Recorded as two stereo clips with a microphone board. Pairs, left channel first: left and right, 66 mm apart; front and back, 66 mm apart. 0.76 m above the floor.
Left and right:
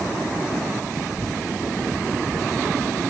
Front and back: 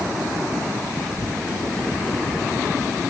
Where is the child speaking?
70° left, 8 m; by 3.0 s 75° left, 6.5 m.